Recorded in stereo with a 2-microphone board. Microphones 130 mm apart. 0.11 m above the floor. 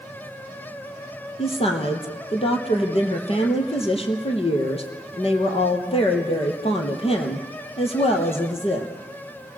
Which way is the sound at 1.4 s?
50° left (ahead or behind).